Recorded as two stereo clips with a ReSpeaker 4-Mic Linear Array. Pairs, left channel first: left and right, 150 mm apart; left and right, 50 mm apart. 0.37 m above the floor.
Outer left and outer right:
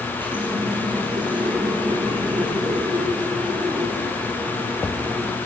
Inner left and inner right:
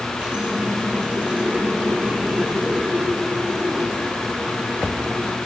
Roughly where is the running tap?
Right.